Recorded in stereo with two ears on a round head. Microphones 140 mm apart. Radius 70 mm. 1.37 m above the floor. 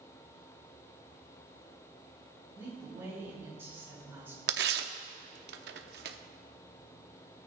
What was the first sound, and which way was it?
A woman speaking, 15° right (ahead or behind).